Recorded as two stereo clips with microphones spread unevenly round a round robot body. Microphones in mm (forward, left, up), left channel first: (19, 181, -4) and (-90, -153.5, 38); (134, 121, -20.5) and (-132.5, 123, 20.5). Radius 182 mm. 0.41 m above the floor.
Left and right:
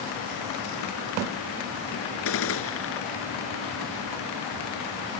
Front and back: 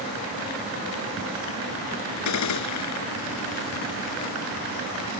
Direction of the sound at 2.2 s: 15° left.